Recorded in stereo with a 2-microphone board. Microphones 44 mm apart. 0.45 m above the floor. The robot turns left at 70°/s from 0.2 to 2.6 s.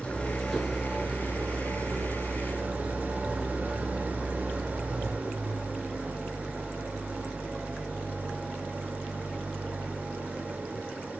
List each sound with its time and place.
0.0 s an engine running: 25° left, 2 m; by 11.2 s 140° right, 2 m